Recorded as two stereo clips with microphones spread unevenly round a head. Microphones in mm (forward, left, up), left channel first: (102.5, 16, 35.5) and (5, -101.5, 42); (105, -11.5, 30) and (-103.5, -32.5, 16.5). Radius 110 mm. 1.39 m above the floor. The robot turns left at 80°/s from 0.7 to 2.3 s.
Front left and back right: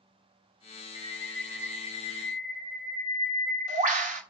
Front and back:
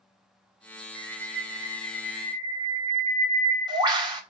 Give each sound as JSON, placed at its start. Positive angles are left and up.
{"t": 0.9, "sound": "a bird", "azimuth_deg": 0, "distance_m": 1.4}